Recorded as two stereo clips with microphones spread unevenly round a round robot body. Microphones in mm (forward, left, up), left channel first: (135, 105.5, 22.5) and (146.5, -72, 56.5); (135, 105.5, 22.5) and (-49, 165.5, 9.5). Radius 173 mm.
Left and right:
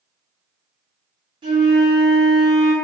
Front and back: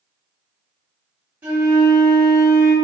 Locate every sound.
1.4 s a flute: 135° right, 1.2 m